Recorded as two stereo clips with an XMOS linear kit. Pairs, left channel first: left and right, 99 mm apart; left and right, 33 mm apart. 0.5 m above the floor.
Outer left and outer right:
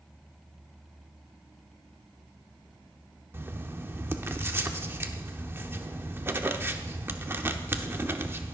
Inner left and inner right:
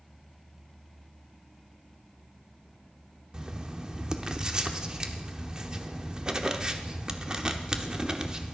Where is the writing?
25° right (ahead or behind), 0.9 m.